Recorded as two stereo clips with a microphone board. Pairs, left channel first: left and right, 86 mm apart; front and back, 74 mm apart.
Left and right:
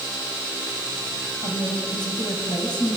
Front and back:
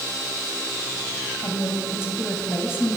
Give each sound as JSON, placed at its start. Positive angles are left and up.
{"t": 1.4, "sound": "a woman speaking", "azimuth_deg": 55, "distance_m": 4.5}